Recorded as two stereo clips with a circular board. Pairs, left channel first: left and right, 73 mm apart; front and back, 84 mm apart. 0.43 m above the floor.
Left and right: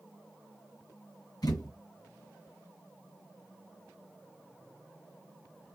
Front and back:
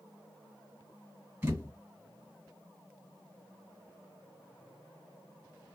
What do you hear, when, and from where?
1.4 s a thud: 115° left, 1.6 m